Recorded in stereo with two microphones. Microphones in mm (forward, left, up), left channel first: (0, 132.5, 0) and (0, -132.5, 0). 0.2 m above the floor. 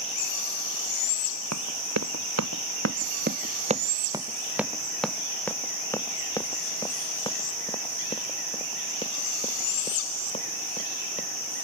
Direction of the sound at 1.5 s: 80° right.